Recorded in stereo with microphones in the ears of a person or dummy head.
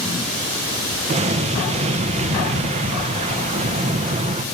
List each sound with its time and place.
1.1 s an explosion: 35° right (ahead or behind), 1.0 m